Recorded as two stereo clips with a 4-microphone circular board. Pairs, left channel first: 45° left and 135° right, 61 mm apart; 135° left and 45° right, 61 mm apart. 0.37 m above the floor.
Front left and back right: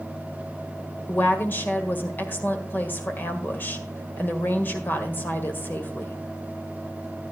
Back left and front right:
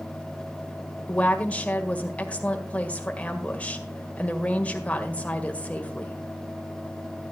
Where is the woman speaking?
80° left, 1.7 m.